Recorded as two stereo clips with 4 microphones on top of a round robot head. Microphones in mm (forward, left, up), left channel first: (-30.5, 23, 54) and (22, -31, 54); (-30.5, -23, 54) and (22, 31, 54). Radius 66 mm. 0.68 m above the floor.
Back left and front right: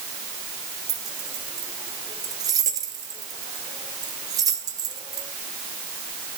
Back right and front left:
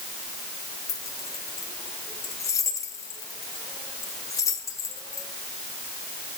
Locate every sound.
0.9 s keys jangling: 85° right, 1.8 m